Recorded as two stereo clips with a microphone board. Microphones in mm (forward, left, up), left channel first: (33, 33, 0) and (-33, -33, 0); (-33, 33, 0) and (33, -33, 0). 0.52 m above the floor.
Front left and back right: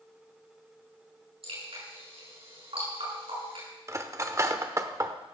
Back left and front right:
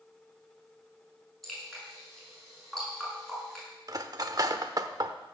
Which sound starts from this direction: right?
Cutlery clinking, at 3.9 s.